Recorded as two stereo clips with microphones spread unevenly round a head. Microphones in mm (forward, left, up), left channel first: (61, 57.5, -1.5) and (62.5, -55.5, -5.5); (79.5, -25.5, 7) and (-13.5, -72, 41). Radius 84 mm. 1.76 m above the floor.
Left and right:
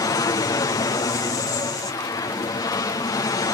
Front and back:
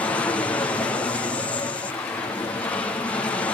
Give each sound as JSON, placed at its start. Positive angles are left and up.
{"t": 0.0, "sound": "an aircraft", "azimuth_deg": 65}